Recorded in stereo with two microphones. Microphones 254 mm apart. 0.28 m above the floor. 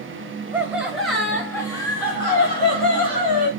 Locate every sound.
0.5 s laughter: 10° right (ahead or behind), 1.6 m; by 3.5 s 25° left (ahead or behind), 2.5 m